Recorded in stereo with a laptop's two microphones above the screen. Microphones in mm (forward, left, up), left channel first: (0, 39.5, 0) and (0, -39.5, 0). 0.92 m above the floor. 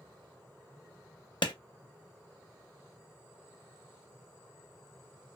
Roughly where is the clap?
Left.